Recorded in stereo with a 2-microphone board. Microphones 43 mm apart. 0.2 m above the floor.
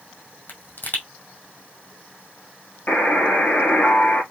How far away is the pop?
About 2.5 m.